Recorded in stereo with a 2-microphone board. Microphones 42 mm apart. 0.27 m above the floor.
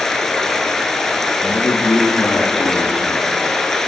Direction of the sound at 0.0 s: 10° left (ahead or behind).